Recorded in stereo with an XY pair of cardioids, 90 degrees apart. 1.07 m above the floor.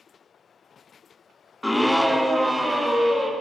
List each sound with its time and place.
1.6 s a scream: 10° left, 0.6 m; by 3.3 s 15° right, 1.9 m